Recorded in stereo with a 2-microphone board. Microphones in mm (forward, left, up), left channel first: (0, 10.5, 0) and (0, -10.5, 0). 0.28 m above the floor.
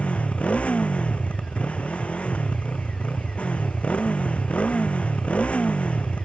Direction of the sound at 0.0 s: 80° left.